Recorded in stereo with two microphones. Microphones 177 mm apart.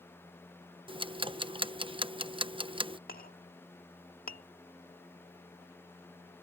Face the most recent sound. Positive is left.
turn(degrees=60)  # may be behind; listen again after turning